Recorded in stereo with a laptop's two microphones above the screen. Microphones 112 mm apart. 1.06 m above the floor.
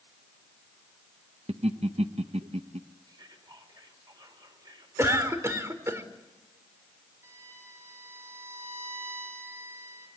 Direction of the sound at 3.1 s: 40° right (ahead or behind).